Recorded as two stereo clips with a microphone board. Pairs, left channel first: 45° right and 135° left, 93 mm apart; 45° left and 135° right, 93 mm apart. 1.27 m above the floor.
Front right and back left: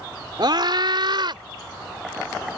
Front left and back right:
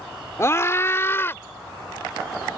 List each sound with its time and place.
0.4 s a scream: 100° left; by 1.4 s 110° left